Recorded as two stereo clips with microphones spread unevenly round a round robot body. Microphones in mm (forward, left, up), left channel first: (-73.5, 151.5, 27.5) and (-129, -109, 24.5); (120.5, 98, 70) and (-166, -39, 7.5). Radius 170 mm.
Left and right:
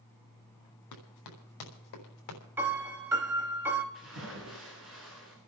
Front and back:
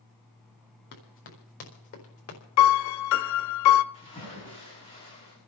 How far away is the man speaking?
I don't hear a man speaking.